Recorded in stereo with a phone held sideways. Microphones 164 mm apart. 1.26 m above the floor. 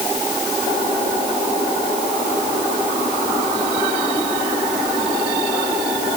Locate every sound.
Only background noise.